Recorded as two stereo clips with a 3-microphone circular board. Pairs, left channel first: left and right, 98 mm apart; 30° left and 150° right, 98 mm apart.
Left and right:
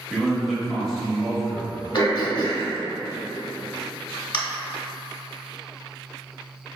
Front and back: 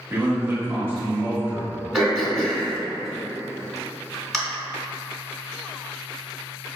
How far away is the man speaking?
About 0.9 m.